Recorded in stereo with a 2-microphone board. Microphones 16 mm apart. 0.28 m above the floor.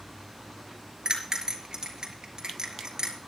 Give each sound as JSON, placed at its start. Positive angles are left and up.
{"t": 1.1, "sound": "a bell", "side_deg": -50, "distance_m": 4.5}